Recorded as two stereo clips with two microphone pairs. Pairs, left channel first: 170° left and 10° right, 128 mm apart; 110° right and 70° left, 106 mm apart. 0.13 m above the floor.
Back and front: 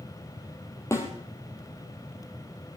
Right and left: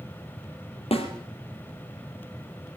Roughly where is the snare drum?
Behind right.